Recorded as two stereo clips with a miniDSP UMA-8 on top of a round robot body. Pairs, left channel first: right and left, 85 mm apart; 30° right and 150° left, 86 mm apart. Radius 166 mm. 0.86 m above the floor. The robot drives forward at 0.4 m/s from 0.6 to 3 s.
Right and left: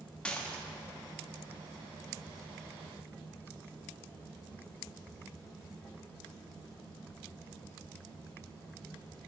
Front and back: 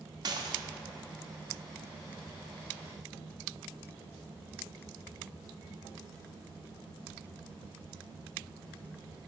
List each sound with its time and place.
0.2 s dishes clattering: 170° right, 1.1 m